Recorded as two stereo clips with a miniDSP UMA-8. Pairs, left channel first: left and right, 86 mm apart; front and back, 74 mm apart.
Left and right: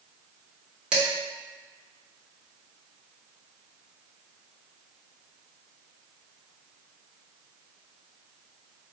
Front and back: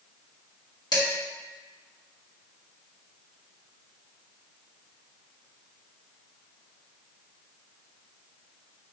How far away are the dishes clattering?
About 1.3 m.